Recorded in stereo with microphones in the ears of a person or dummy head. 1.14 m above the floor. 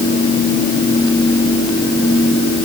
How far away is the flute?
No flute in this recording.